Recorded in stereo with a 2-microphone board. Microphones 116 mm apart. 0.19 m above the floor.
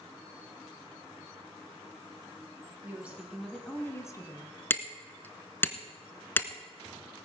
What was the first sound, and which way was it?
A woman speaking, 15° right (ahead or behind).